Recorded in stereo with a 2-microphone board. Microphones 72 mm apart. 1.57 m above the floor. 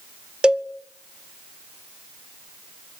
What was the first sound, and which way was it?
A cowbell, 15° right (ahead or behind).